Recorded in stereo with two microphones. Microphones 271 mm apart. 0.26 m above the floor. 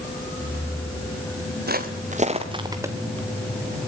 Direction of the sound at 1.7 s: 35° right (ahead or behind).